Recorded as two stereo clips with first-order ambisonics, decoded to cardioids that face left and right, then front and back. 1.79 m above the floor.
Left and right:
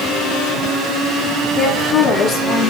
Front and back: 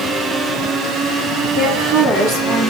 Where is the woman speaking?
140° left, 4.5 m; by 2.7 s 130° left, 3.5 m.